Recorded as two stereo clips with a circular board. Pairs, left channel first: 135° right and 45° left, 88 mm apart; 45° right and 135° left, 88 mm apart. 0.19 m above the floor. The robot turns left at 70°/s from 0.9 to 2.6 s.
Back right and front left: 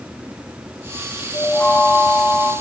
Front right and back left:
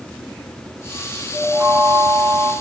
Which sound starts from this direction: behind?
A chime, at 1.3 s.